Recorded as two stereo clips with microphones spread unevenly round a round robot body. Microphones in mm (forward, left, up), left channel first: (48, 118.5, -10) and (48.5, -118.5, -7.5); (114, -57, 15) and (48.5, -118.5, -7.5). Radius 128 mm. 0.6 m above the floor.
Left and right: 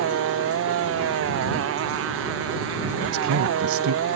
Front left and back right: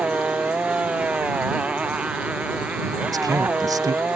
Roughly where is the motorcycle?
Ahead right.